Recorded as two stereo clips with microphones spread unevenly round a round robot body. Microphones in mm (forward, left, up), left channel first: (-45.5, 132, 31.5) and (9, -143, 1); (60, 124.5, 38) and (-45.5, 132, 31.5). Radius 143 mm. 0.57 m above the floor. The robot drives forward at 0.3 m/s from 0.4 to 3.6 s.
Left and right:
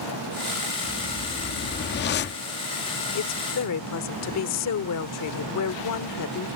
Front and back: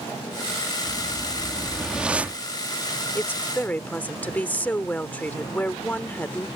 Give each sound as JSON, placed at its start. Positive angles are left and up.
{"t": 0.8, "sound": "a whoosh", "azimuth_deg": 70}
{"t": 3.1, "sound": "a woman speaking", "azimuth_deg": 65}